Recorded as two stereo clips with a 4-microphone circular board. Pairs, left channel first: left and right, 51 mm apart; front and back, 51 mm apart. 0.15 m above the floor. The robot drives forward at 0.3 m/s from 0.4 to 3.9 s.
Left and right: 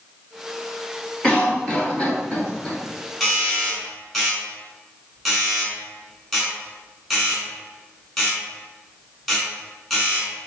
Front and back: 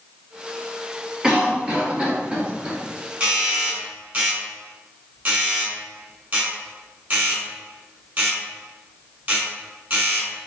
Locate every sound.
1.2 s a cough: 125° left, 1.4 m; by 2.8 s 150° left, 1.6 m
3.2 s a doorbell: 175° left, 1.7 m